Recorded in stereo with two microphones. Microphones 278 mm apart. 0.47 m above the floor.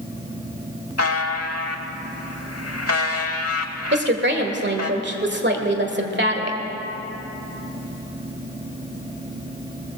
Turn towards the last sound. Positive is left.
turn(degrees=-40)  # may be behind; listen again after turning